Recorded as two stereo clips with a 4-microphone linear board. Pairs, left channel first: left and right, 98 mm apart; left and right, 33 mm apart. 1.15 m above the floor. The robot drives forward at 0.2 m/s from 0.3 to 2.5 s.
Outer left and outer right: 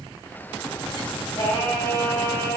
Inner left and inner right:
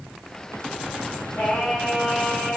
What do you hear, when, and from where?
1.4 s singing: 60° left (ahead or behind), 1.7 m; by 2.6 s 55° left (ahead or behind), 1.8 m